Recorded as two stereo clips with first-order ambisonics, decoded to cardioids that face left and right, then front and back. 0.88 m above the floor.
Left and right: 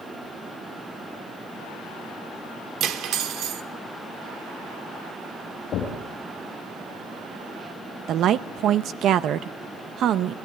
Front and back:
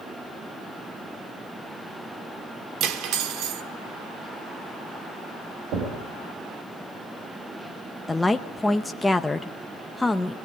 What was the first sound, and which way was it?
Cutlery clinking, 140° right.